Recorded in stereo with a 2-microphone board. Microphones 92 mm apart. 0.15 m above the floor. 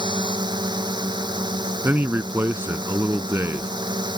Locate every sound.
0.0 s a drone: 50° right (ahead or behind)
1.8 s a man speaking: 25° right (ahead or behind)